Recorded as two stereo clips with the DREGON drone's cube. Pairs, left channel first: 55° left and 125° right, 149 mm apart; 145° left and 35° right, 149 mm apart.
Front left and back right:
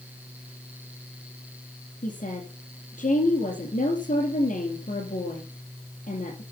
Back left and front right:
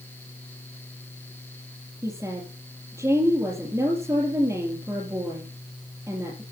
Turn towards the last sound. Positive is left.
turn(degrees=35)